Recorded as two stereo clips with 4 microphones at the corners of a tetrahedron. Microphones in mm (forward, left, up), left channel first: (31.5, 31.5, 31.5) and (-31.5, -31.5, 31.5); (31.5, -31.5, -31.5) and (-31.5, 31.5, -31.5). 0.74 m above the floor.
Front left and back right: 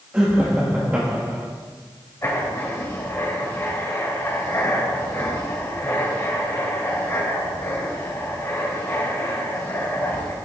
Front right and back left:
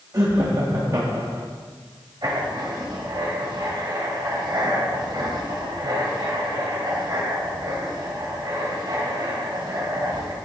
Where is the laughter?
160° left, 1.4 m.